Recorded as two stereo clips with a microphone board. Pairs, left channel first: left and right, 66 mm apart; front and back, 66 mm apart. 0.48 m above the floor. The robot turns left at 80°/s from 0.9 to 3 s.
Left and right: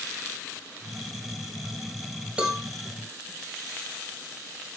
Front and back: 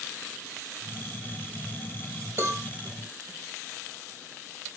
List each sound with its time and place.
2.4 s a cowbell: 160° right, 2 m; by 2.6 s straight behind, 2 m